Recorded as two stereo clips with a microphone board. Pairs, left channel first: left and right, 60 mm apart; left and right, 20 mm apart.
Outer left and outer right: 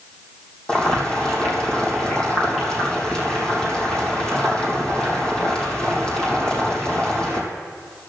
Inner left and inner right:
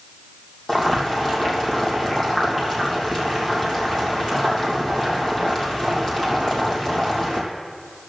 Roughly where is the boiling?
Centre.